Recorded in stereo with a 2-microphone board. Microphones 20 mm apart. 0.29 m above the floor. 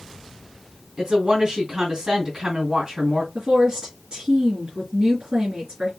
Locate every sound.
1.0 s a woman speaking: 25° right (ahead or behind), 3 m
3.4 s a woman speaking: 55° right (ahead or behind), 3 m